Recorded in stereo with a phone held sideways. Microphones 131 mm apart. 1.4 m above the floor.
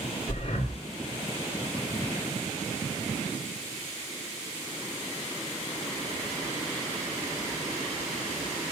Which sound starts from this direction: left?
Breathing, at 0.3 s.